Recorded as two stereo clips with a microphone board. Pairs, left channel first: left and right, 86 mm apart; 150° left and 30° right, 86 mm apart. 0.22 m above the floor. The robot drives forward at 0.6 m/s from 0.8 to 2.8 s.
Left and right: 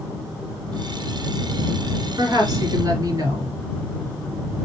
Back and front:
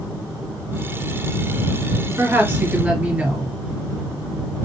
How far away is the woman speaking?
About 1.5 m.